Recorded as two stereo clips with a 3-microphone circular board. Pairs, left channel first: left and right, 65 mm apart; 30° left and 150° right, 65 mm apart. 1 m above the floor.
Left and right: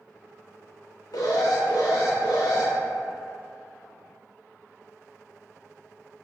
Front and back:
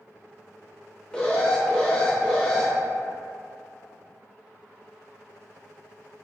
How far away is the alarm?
About 0.5 m.